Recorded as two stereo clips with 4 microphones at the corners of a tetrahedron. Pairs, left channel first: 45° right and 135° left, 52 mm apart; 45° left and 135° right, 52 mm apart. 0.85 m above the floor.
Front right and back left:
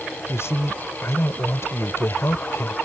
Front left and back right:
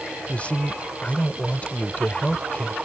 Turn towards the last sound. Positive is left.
turn(degrees=-15)